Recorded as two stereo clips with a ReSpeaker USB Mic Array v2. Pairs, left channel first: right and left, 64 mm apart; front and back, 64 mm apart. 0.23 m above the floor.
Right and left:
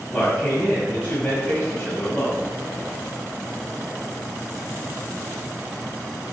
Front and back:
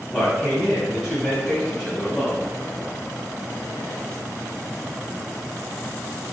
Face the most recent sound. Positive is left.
turn(degrees=-100)